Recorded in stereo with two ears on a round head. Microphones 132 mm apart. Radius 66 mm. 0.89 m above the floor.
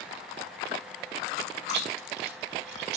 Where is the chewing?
85° right, 1.9 m.